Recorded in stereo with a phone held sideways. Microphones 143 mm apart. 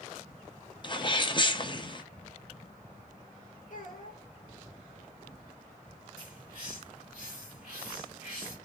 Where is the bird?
70° left (ahead or behind), 2 m.